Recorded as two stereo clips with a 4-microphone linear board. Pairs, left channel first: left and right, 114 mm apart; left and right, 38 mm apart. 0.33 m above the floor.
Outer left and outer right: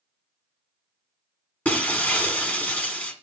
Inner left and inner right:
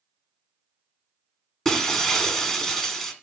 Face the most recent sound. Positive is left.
turn(degrees=15)  # may be behind; listen again after turning